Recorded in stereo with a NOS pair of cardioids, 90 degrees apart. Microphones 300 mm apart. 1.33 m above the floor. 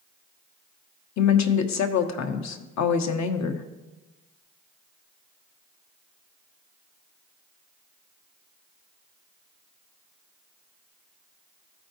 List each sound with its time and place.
1.2 s a woman speaking: 65° left, 0.9 m